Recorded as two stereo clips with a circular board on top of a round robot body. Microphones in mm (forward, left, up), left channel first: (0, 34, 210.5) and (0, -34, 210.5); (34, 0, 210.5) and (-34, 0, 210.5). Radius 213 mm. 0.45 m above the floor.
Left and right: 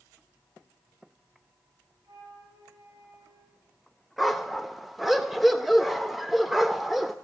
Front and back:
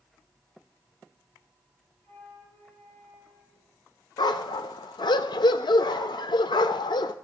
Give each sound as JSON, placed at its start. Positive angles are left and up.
{"t": 2.0, "sound": "a flute", "azimuth_deg": -65, "distance_m": 9.0}
{"t": 4.2, "sound": "a dog barking", "azimuth_deg": 0, "distance_m": 0.5}